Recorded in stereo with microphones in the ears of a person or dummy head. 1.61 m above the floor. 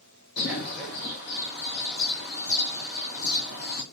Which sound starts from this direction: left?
A bird, at 0.4 s.